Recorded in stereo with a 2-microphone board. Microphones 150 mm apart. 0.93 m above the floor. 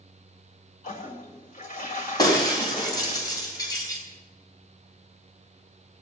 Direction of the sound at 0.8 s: 65° left (ahead or behind).